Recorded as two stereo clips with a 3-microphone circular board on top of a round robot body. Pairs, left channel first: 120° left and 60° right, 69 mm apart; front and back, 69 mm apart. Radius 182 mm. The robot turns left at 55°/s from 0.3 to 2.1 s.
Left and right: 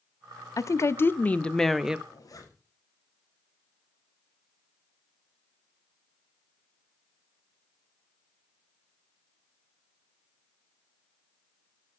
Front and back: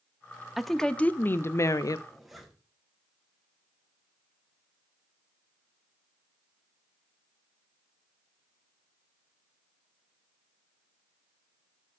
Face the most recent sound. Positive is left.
turn(degrees=90)